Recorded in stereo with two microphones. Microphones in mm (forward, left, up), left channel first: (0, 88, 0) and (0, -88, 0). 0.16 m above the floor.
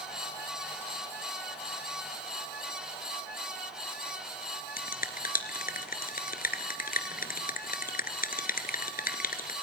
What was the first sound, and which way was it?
A finger snap, 55° left (ahead or behind).